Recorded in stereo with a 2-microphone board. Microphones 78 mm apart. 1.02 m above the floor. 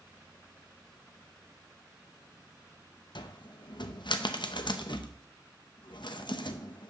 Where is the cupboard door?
75° left (ahead or behind), 0.6 m.